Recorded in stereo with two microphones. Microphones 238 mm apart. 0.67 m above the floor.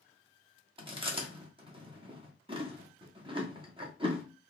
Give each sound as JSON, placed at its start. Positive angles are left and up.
{"t": 0.8, "sound": "chewing", "side_deg": -20, "distance_m": 0.9}